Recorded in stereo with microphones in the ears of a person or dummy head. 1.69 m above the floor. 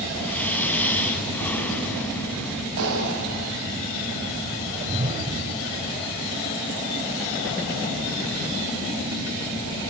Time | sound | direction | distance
0.2 | breathing | 10° left (ahead or behind) | 3.5 m
2.8 | a clap | 70° right (ahead or behind) | 8.5 m
4.7 | a whoosh | 40° right (ahead or behind) | 2.5 m